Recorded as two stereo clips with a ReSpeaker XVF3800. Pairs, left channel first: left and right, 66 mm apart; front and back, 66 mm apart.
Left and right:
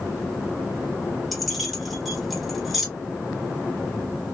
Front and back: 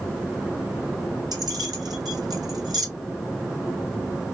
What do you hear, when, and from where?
1.3 s keys jangling: straight behind, 2.5 m